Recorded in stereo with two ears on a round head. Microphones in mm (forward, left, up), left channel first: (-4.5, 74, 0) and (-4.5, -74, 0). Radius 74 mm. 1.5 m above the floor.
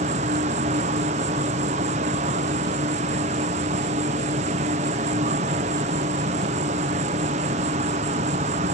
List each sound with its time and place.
0.0 s an insect: 40° right (ahead or behind)